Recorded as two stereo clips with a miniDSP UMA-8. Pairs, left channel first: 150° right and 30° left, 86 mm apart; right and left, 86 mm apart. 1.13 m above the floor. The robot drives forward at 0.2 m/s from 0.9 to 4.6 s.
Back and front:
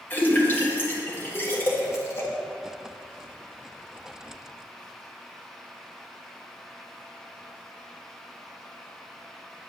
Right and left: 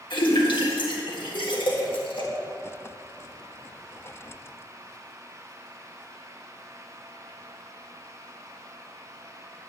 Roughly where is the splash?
Right.